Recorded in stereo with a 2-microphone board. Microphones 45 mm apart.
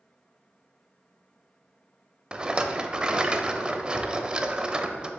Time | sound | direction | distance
2.3 | a rattle | 20° right (ahead or behind) | 0.5 m